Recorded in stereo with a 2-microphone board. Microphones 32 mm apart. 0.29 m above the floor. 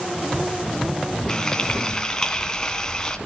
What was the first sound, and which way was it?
Frying, 25° left (ahead or behind).